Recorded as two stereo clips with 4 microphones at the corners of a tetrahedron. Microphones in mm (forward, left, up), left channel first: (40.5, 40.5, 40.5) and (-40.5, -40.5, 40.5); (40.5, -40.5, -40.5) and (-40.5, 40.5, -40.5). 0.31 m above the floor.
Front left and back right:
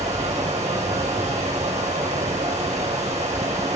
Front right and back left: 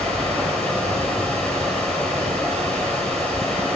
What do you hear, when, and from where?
0.0 s running water: 125° right, 5 m